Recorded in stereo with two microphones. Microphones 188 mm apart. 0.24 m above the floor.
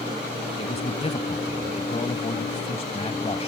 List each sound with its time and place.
0.6 s a man speaking: 35° left (ahead or behind)